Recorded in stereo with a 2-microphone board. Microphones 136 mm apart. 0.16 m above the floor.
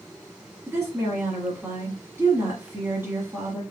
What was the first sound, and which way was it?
A woman speaking, 15° right (ahead or behind).